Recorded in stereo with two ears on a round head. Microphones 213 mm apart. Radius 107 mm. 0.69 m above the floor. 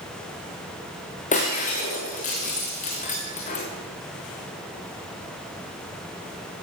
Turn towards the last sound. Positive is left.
turn(degrees=35)  # may be behind; listen again after turning